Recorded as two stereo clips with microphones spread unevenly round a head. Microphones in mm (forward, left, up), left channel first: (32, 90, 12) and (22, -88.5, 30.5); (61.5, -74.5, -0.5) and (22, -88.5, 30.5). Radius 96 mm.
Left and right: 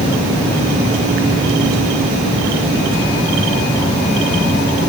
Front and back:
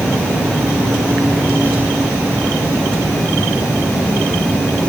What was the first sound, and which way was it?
Only background noise.